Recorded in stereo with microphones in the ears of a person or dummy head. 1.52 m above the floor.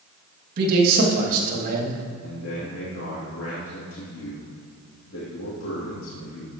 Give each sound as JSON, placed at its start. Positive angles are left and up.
{"t": 0.6, "sound": "a man speaking", "side_deg": -55, "distance_m": 2.5}
{"t": 2.2, "sound": "a man speaking", "side_deg": 75, "distance_m": 3.0}